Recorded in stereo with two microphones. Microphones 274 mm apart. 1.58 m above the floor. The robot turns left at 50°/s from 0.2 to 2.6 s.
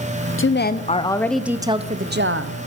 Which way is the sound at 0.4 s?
50° left.